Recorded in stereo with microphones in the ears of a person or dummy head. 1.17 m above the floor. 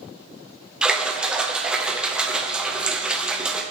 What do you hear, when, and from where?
0.8 s a splash: 5° right (ahead or behind), 0.8 m